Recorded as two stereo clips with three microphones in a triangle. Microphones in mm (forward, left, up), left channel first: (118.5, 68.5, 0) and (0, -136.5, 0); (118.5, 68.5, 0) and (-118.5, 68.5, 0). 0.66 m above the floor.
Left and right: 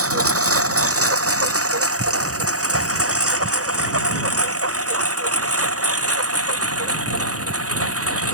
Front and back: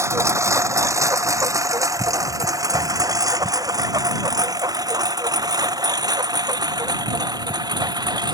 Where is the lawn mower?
100° right; by 8.3 s 105° right.